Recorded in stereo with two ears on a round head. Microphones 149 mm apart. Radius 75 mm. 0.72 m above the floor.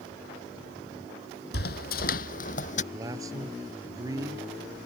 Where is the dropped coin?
I don't hear a dropped coin.